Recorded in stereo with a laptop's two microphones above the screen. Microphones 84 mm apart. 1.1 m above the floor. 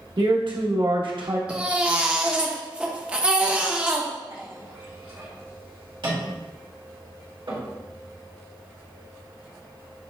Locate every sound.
0.2 s a man speaking: 70° right (ahead or behind), 1.1 m
1.5 s a baby crying: 15° right (ahead or behind), 0.6 m
4.3 s a clink: 75° right (ahead or behind), 2.0 m